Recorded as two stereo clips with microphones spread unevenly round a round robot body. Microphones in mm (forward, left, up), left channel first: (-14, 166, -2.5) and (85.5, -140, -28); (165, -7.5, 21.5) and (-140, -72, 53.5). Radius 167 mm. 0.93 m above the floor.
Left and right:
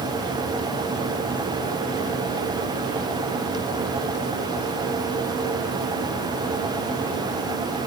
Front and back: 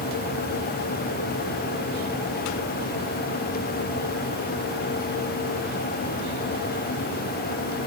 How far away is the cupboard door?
No cupboard door in this recording.